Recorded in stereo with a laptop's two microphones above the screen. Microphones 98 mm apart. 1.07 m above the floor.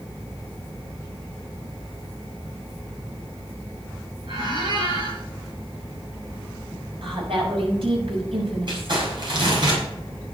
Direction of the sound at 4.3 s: 60° right (ahead or behind).